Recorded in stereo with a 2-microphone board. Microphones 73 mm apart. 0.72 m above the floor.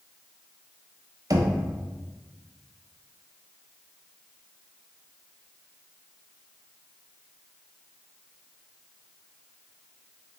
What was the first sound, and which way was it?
Knocking, 55° right (ahead or behind).